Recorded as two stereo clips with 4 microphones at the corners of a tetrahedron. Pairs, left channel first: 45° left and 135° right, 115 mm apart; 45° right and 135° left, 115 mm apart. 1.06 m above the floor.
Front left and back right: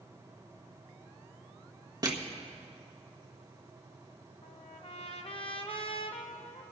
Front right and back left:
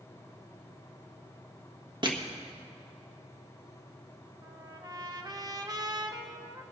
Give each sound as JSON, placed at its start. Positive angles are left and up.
{"t": 2.0, "sound": "crushing", "azimuth_deg": 170, "distance_m": 1.4}
{"t": 4.4, "sound": "a trumpet", "azimuth_deg": 80, "distance_m": 0.9}